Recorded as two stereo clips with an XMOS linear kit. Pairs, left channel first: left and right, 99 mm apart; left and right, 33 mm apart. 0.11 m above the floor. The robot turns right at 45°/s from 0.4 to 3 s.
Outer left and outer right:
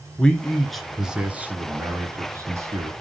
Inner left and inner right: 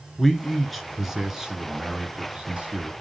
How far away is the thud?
No thud in this recording.